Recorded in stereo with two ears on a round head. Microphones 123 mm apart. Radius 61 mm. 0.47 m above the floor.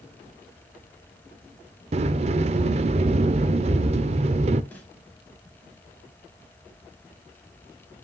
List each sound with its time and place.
1.9 s a sliding door: 45° right (ahead or behind), 0.5 m
4.7 s a snare drum: 10° left (ahead or behind), 3 m